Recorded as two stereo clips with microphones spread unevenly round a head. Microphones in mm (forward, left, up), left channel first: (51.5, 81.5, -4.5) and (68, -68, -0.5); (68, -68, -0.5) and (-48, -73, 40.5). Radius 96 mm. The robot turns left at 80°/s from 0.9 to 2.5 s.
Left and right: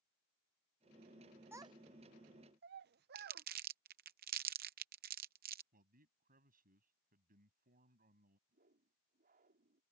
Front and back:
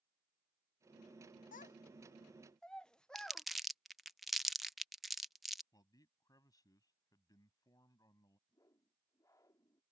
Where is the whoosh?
60° right.